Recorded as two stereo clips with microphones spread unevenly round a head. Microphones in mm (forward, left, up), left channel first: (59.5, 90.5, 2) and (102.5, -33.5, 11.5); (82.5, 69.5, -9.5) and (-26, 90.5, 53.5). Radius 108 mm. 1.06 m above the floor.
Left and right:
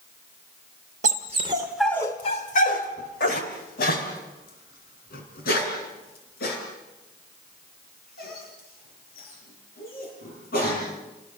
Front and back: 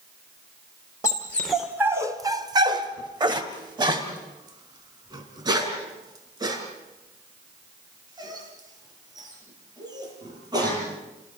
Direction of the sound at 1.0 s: 100° right.